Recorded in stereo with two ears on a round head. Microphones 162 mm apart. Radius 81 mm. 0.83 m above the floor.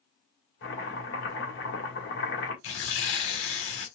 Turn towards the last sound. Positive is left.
turn(degrees=85)